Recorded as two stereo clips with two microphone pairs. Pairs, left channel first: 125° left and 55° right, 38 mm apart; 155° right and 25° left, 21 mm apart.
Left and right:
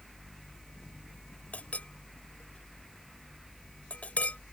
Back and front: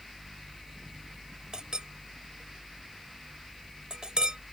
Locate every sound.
1.5 s a clink: 75° left